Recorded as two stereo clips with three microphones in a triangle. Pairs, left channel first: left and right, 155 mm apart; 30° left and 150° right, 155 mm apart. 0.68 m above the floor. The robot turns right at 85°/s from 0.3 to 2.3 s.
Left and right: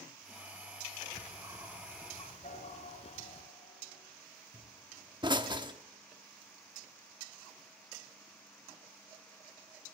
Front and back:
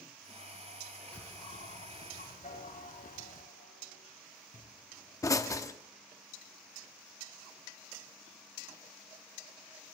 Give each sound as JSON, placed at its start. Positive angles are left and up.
{"t": 1.1, "sound": "a bird", "azimuth_deg": -55, "distance_m": 1.6}
{"t": 2.4, "sound": "a piano", "azimuth_deg": 55, "distance_m": 8.5}
{"t": 4.5, "sound": "a pop", "azimuth_deg": -35, "distance_m": 0.8}